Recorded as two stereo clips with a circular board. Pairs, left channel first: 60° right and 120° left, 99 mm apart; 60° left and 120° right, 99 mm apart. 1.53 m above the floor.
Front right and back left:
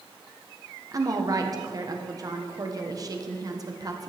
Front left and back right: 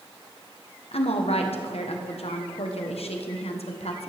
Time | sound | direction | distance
0.9 | a woman speaking | 65° left | 1.1 m